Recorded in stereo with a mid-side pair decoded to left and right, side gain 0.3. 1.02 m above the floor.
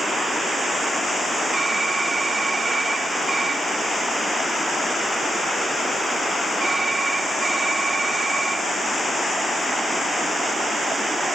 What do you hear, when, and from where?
1.5 s typing on a keyboard: 40° right, 1.4 m